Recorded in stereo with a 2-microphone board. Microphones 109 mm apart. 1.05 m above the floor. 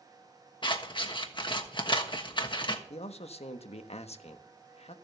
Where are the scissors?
45° left (ahead or behind), 1.3 m.